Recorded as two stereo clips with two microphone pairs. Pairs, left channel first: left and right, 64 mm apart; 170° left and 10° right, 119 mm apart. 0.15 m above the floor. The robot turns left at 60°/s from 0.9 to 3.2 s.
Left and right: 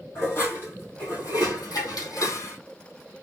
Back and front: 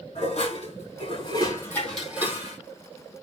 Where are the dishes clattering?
145° left, 4 m; by 2.6 s 45° left, 4 m.